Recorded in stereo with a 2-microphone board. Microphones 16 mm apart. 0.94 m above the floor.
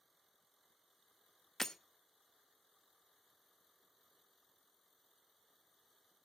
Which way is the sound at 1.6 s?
25° left (ahead or behind).